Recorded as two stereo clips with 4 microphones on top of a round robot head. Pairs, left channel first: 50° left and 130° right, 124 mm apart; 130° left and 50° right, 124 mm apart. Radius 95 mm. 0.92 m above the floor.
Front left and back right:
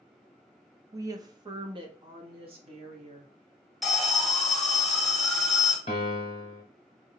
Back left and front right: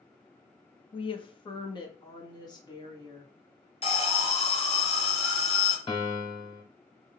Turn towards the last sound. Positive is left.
turn(degrees=90)